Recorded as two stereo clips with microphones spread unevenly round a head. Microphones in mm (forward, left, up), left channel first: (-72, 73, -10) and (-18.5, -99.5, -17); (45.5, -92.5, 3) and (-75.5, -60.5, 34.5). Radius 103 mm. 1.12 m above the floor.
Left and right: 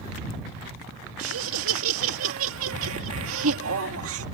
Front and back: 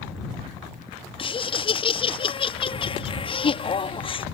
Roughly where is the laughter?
Ahead right.